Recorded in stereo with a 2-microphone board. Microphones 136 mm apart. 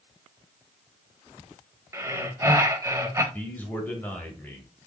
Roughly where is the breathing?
Right.